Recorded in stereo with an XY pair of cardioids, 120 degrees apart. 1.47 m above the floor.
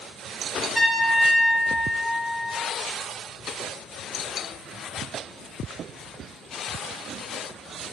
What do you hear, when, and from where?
0.8 s a trumpet: 15° right, 1.5 m